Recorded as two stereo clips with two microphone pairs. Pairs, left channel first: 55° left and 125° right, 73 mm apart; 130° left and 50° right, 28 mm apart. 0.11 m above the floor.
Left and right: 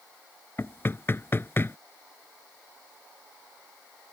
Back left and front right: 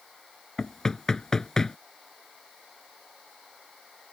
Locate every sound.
0.6 s knocking: 80° left